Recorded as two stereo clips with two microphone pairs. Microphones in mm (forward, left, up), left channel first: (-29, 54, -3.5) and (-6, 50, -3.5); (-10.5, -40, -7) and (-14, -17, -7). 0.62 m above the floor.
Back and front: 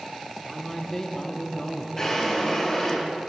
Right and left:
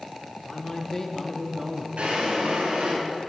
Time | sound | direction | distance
0.4 | a man speaking | 115° right | 1.3 m
2.0 | a drawer | 105° left | 2.5 m